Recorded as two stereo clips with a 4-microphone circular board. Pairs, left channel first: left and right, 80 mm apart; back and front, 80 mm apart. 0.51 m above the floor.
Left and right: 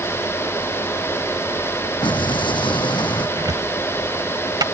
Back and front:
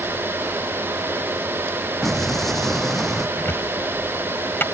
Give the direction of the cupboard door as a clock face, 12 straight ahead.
4 o'clock.